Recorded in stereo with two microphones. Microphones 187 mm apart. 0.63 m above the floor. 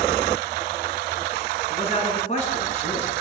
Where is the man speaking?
35° left (ahead or behind), 8.5 m.